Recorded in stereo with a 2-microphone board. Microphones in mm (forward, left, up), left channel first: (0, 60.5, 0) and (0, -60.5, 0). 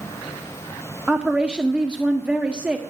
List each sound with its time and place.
1.1 s a woman speaking: 10° right (ahead or behind), 0.8 m